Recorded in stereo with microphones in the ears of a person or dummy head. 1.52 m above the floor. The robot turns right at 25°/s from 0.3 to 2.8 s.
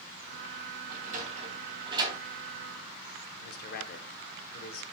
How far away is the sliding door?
About 3 m.